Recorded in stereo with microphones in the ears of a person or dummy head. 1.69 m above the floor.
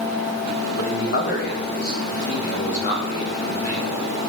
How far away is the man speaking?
About 1.5 m.